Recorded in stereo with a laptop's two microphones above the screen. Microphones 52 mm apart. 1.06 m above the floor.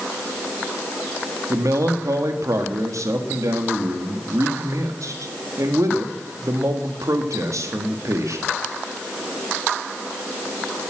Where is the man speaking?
80° right, 1.7 m.